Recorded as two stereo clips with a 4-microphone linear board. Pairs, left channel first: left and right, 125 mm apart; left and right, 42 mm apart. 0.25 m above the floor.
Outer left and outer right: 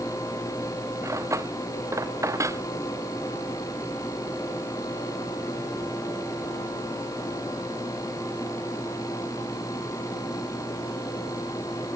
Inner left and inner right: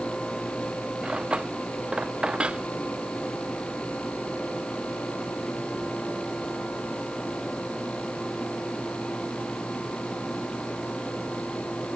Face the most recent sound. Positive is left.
turn(degrees=-25)  # may be behind; listen again after turning